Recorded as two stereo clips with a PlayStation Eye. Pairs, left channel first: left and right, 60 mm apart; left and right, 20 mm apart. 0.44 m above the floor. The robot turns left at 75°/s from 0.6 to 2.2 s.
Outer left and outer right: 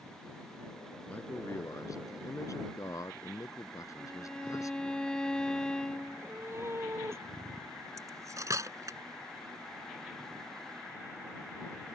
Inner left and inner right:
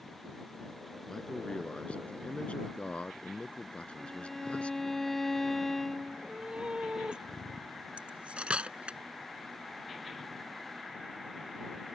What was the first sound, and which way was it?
A man speaking, 160° left.